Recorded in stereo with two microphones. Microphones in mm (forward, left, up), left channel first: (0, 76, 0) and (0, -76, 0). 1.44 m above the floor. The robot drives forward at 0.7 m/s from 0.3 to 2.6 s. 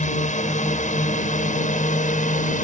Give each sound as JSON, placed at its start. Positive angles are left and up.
{"t": 0.0, "sound": "a drone", "side_deg": 60}